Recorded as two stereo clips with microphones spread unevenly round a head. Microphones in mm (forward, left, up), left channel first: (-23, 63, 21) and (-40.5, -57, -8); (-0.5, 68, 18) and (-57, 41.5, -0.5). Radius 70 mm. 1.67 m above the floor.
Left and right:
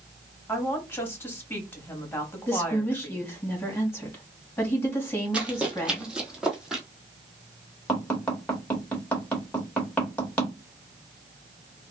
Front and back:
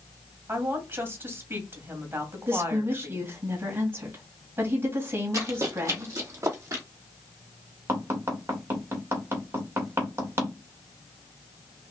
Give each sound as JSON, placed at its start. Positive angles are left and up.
{"t": 0.5, "sound": "a woman speaking", "azimuth_deg": 150, "distance_m": 2.5}
{"t": 2.5, "sound": "a woman speaking", "azimuth_deg": 150, "distance_m": 2.5}
{"t": 5.3, "sound": "running footsteps", "azimuth_deg": 170, "distance_m": 2.0}
{"t": 7.9, "sound": "tapping", "azimuth_deg": 160, "distance_m": 2.5}